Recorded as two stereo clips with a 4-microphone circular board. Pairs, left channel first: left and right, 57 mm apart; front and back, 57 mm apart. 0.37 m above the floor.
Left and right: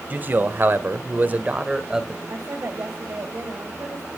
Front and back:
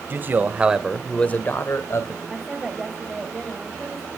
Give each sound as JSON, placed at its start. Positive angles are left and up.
{"t": 0.1, "sound": "a man speaking", "azimuth_deg": -140, "distance_m": 1.7}
{"t": 2.2, "sound": "a woman speaking", "azimuth_deg": -90, "distance_m": 2.5}